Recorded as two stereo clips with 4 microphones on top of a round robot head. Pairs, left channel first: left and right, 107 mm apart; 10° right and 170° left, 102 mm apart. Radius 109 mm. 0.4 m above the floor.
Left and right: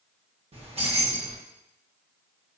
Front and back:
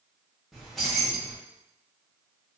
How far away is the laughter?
No laughter in this recording.